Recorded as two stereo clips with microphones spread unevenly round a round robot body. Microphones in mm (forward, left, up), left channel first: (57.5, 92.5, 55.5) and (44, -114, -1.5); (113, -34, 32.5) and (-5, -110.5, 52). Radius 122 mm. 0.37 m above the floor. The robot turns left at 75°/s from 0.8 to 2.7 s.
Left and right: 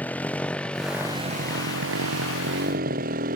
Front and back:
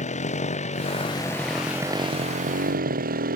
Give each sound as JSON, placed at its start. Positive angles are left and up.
{"t": 0.0, "sound": "a motorcycle", "azimuth_deg": 5}